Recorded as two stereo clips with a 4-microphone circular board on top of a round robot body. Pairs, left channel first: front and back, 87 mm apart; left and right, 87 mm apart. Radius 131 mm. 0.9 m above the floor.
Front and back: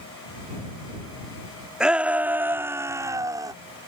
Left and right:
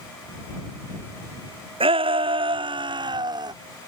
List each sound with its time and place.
1.8 s a shout: 100° right; by 3.5 s 130° right